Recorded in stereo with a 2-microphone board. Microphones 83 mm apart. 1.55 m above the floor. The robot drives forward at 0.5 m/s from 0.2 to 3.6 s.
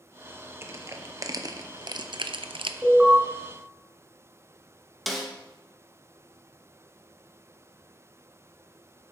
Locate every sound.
0.6 s crushing: 30° right (ahead or behind), 1.2 m; by 2.7 s 80° right, 0.6 m
2.8 s an alarm: 15° right (ahead or behind), 6 m
5.1 s a snare drum: centre (ahead or behind), 1.5 m